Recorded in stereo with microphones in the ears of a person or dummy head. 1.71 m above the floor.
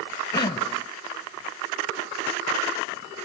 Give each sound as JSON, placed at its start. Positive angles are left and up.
{"t": 0.3, "sound": "throat clearing", "side_deg": 25}